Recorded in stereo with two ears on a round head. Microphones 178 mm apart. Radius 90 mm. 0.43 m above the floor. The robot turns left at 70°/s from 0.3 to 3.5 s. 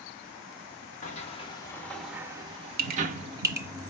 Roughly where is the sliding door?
Left.